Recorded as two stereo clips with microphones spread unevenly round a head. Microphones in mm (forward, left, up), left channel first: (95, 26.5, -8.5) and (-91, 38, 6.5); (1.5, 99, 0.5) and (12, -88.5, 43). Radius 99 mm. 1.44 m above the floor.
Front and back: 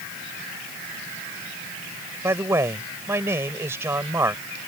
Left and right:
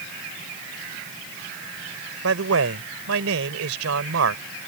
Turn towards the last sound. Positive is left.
turn(degrees=-105)